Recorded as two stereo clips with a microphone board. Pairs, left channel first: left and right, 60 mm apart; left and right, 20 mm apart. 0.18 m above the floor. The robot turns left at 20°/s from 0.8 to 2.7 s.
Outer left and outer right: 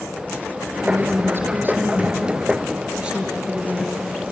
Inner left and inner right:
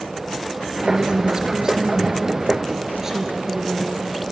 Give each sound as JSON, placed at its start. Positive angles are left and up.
{"t": 0.8, "sound": "a woman speaking", "azimuth_deg": -125, "distance_m": 3.5}